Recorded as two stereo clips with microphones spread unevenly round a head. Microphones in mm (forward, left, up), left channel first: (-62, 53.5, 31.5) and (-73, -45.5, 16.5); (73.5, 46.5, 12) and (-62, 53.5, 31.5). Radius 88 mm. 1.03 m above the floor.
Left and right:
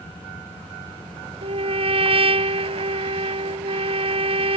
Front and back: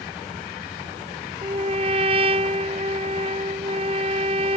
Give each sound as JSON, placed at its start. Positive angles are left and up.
{"t": 1.4, "sound": "a trumpet", "azimuth_deg": -125}